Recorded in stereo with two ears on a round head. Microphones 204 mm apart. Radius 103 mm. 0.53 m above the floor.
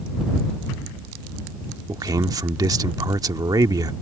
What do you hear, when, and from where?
1.9 s a man speaking: 15° right (ahead or behind)